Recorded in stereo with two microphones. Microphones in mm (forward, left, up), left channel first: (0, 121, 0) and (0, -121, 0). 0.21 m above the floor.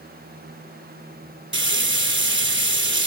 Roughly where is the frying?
Right.